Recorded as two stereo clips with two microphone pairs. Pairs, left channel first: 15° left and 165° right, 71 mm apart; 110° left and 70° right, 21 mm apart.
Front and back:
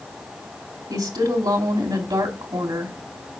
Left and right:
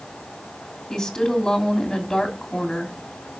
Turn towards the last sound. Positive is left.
turn(degrees=175)